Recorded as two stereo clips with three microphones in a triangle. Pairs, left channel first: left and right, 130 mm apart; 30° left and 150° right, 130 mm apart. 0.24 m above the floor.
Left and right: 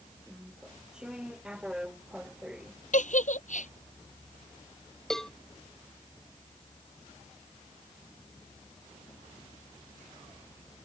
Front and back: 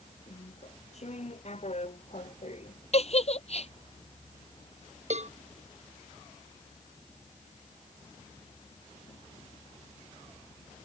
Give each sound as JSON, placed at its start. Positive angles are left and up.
{"t": 0.3, "sound": "chewing", "azimuth_deg": -5}
{"t": 2.9, "sound": "a giggle", "azimuth_deg": 70}
{"t": 5.1, "sound": "a cowbell", "azimuth_deg": 175}